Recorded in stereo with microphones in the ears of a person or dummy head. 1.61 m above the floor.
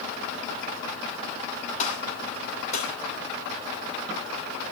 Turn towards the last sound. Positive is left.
turn(degrees=45)  # may be behind; listen again after turning